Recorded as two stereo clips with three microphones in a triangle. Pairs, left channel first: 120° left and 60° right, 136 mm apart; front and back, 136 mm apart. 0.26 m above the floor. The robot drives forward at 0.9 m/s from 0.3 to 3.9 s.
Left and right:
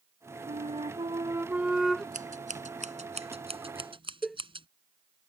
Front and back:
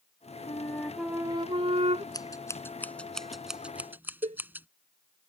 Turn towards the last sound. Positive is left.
turn(degrees=-150)